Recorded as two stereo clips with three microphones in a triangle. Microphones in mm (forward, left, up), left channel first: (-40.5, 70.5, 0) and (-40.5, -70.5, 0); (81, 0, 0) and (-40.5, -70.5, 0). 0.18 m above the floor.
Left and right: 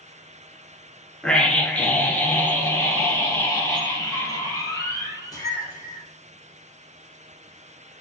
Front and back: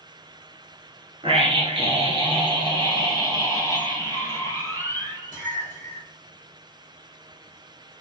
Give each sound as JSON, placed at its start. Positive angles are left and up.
{"t": 1.2, "sound": "a scream", "azimuth_deg": 175, "distance_m": 2.0}